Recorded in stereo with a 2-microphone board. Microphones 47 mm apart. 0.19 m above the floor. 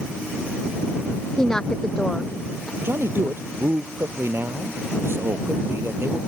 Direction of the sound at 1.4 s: 10° left (ahead or behind).